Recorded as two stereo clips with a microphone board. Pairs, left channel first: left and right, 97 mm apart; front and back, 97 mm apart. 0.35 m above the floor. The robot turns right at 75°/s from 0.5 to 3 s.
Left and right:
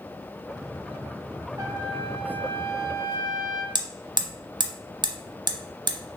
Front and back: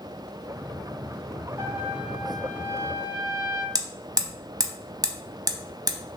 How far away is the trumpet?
About 0.8 m.